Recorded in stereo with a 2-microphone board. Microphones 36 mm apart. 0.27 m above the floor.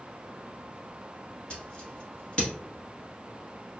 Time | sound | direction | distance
1.5 | scissors | 25° left (ahead or behind) | 1.2 m